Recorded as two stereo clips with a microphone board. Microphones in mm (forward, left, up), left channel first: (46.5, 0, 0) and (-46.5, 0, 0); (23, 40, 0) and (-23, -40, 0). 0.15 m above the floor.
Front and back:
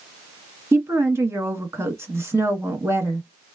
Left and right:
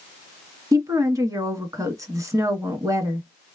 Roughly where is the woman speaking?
Behind right.